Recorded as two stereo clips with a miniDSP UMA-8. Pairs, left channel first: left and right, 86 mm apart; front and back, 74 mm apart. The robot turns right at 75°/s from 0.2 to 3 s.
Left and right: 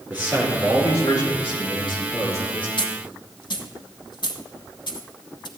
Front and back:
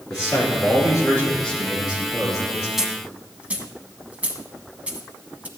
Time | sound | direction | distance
0.1 | a man speaking | 20° right | 5.5 m
2.8 | a dropped coin | 95° left | 1.3 m